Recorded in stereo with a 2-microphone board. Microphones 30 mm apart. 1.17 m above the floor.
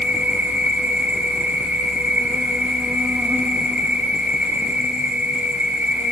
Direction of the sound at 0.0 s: 65° right (ahead or behind).